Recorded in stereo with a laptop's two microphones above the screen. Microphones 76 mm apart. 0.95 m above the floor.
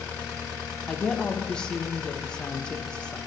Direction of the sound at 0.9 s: 10° left (ahead or behind).